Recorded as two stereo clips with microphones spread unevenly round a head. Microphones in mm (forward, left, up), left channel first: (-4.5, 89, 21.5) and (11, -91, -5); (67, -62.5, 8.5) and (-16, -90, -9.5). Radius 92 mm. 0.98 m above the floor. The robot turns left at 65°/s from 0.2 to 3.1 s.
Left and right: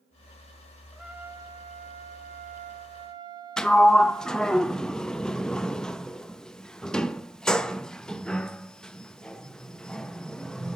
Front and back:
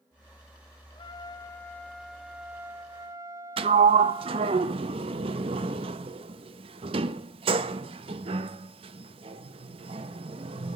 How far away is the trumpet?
About 1.0 m.